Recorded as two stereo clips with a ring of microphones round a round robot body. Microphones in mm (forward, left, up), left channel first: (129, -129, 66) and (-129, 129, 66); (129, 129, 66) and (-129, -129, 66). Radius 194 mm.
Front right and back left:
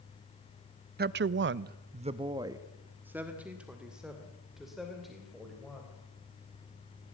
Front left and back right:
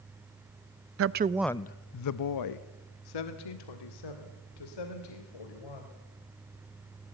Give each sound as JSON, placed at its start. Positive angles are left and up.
{"t": 1.0, "sound": "a woman speaking", "azimuth_deg": -170, "distance_m": 0.6}